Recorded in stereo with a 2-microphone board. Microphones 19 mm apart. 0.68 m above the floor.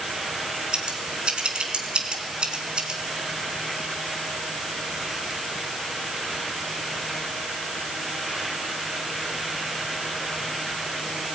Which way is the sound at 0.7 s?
55° right (ahead or behind).